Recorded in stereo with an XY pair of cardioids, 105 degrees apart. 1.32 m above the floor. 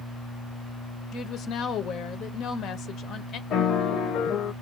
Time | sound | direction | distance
1.1 | a woman speaking | 70° left | 0.8 m
3.5 | a piano | 65° left | 0.9 m